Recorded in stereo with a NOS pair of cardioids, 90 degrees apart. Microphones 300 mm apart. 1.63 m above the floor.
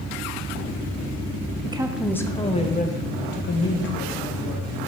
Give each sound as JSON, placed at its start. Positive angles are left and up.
{"t": 1.6, "sound": "a woman speaking", "azimuth_deg": -20, "distance_m": 0.7}